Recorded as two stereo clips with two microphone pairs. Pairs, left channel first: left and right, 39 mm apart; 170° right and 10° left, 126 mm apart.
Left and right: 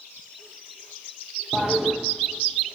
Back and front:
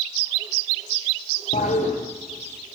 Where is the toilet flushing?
175° right, 7 m.